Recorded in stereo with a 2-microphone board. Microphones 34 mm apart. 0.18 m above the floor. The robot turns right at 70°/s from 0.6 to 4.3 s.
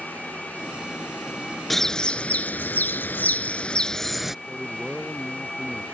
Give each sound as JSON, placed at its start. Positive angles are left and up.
{"t": 1.7, "sound": "a bird", "azimuth_deg": 5}
{"t": 4.5, "sound": "a man speaking", "side_deg": 5}